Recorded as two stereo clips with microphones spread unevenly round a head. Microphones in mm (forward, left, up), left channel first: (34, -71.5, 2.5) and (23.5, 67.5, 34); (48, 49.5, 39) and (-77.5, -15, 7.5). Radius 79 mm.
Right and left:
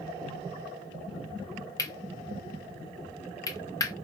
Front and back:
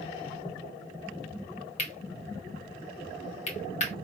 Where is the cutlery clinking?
15° right, 1.7 m.